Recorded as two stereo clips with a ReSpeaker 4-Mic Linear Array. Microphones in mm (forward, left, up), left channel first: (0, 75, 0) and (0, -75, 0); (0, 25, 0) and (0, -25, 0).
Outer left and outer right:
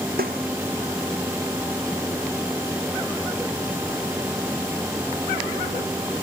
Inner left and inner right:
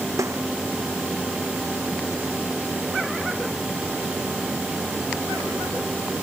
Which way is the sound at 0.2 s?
90° right.